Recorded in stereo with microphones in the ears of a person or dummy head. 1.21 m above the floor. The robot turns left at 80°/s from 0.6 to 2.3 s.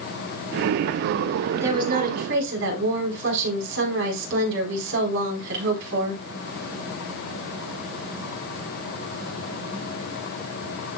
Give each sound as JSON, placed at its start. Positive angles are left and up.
{"t": 1.5, "sound": "a woman speaking", "azimuth_deg": -10, "distance_m": 4.5}